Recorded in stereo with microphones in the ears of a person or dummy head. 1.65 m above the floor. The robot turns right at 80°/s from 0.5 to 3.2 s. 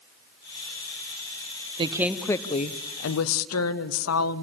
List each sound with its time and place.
1.8 s a woman speaking: 30° right, 0.7 m; by 4.5 s 85° left, 0.7 m